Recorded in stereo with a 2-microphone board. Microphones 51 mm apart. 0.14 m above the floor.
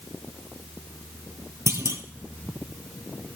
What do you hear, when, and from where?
1.7 s a clunk: 70° right (ahead or behind), 1.4 m